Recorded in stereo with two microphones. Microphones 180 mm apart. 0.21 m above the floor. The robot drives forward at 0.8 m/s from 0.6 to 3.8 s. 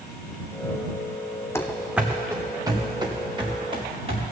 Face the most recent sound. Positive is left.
turn(degrees=-35)  # may be behind; listen again after turning